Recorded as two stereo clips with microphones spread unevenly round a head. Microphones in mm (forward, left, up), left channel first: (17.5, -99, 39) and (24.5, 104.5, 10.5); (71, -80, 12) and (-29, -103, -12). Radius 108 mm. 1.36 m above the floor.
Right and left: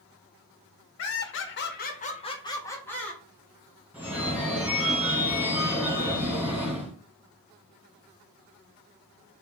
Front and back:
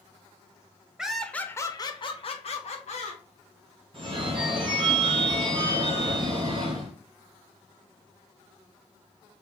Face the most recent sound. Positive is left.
turn(degrees=180)